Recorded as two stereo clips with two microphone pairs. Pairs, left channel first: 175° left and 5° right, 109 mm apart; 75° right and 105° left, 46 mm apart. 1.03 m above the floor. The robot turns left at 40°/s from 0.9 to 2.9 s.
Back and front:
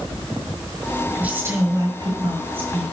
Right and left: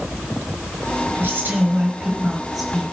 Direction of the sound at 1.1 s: 70° left.